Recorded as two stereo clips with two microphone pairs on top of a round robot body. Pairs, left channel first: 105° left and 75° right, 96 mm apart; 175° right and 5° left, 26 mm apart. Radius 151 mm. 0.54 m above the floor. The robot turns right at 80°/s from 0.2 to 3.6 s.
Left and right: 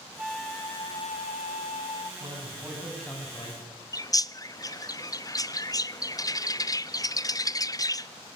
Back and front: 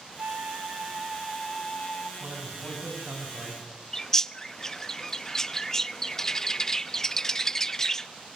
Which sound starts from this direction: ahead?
A flute, at 0.2 s.